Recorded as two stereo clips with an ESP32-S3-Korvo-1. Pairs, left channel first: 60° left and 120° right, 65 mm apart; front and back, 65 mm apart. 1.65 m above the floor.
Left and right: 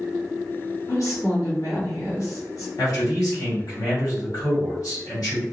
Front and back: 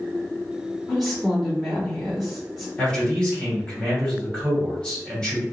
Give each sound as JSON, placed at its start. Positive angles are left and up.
{"t": 0.9, "sound": "a woman speaking", "azimuth_deg": 90, "distance_m": 1.9}
{"t": 2.8, "sound": "a man speaking", "azimuth_deg": 75, "distance_m": 1.9}